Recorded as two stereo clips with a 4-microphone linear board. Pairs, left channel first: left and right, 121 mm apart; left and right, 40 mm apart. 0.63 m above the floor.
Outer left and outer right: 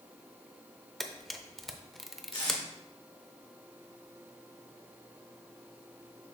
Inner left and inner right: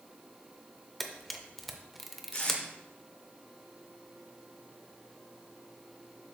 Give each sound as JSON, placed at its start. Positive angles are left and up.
{"t": 1.0, "sound": "a camera shutter", "side_deg": 0, "distance_m": 0.6}
{"t": 2.3, "sound": "tape being pulled", "side_deg": 45, "distance_m": 2.5}